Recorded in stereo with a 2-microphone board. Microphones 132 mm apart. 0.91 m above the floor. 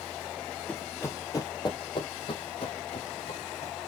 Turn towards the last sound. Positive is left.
turn(degrees=55)  # may be behind; listen again after turning